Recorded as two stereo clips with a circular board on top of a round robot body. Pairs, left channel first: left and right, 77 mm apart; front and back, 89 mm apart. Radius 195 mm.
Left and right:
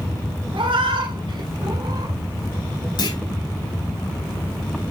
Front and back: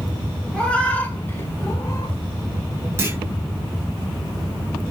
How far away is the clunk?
About 5.5 m.